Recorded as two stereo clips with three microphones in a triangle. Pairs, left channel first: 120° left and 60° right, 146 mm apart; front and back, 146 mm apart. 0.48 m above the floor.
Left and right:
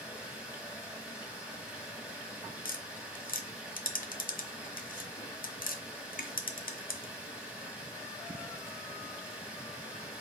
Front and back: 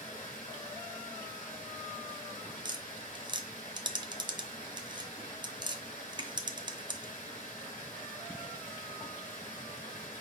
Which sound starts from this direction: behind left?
Tapping, at 2.6 s.